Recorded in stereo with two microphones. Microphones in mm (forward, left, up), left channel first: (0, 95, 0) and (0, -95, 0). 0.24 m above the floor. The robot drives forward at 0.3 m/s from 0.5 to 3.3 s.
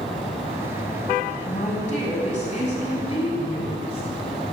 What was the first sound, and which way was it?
A woman speaking, 40° left (ahead or behind).